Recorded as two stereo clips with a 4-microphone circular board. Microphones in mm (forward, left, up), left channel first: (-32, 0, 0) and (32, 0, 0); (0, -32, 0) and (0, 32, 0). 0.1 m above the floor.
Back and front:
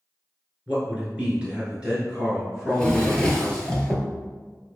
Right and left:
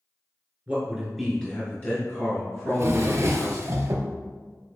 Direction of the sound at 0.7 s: 50° left.